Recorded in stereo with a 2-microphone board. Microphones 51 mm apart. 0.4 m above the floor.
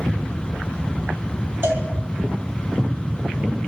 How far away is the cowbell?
About 2.5 m.